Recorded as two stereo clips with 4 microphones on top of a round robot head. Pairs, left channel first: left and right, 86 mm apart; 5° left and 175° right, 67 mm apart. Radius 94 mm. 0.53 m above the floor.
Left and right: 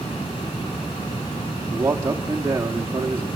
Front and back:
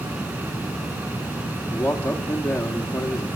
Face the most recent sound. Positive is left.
turn(degrees=-35)